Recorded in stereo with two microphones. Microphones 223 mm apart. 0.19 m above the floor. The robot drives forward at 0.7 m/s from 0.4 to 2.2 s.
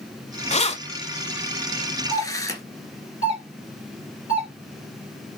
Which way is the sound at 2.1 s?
25° right (ahead or behind).